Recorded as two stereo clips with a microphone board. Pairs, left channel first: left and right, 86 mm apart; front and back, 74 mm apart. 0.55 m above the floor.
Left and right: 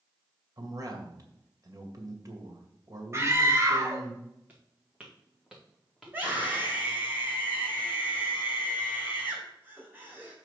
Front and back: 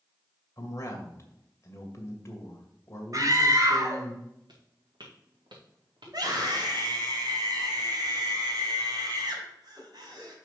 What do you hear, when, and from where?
0.6 s a man speaking: 50° right, 2 m
3.1 s a scream: 145° right, 2 m
4.5 s footsteps: 160° right, 3 m; by 6.7 s straight behind, 3.5 m
6.0 s a scream: 155° right, 3.5 m